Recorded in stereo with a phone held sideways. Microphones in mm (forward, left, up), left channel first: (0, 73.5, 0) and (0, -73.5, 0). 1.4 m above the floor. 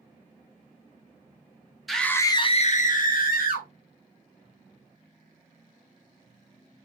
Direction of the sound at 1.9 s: Centre (ahead or behind).